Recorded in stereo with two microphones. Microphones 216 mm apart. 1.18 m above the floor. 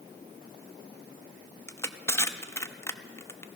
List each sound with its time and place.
1.7 s crushing: 10° left (ahead or behind), 0.5 m